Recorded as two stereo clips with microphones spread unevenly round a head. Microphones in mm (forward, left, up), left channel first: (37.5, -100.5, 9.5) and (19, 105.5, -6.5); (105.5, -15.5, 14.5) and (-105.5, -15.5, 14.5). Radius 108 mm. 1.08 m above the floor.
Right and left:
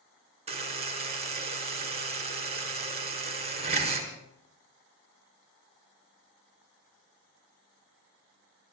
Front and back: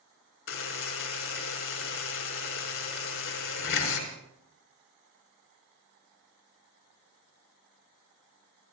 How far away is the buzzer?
About 5 m.